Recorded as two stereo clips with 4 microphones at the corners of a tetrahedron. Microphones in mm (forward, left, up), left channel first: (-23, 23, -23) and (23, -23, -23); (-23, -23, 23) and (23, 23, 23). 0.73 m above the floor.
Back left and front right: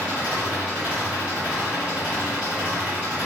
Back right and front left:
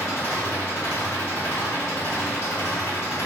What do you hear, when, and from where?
0.0 s an engine running: 110° right, 1.3 m